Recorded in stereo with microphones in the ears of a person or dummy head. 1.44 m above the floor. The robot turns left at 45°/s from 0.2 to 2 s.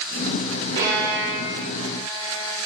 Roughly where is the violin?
Right.